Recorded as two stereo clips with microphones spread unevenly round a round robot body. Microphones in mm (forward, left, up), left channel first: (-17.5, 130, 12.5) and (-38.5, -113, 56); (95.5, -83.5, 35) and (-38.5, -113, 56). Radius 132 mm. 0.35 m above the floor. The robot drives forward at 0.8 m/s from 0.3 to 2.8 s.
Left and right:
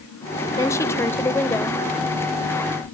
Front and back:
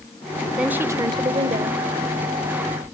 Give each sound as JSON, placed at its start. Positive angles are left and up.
{"t": 0.6, "sound": "a woman speaking", "azimuth_deg": 95, "distance_m": 1.0}